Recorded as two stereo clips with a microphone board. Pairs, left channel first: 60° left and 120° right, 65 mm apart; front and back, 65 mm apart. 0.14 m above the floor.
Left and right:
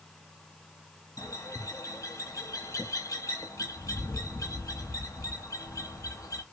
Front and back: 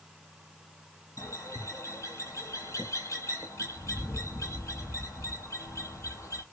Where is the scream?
No scream in this recording.